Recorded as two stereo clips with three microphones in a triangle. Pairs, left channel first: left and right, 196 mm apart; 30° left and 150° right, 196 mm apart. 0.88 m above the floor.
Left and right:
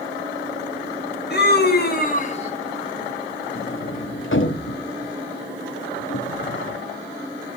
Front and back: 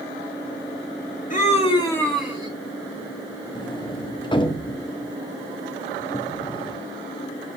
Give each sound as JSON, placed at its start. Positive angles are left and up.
{"t": 1.3, "sound": "a scream", "azimuth_deg": 70, "distance_m": 1.6}
{"t": 3.5, "sound": "a sliding door", "azimuth_deg": 95, "distance_m": 0.9}